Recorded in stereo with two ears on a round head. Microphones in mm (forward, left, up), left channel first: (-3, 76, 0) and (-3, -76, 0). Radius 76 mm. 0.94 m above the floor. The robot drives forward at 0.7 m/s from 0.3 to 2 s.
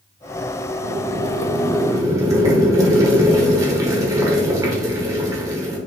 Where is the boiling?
45° right (ahead or behind), 0.5 m; by 5.8 s 20° right (ahead or behind), 1.0 m.